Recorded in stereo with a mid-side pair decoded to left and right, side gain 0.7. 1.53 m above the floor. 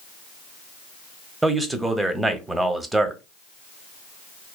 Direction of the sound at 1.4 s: 10° right.